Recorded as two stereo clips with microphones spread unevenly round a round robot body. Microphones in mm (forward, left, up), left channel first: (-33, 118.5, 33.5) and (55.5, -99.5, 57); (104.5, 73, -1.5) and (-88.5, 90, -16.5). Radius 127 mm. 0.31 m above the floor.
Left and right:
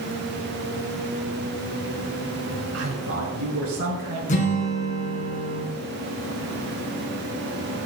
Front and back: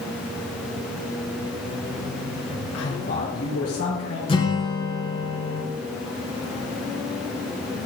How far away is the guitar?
About 3.5 m.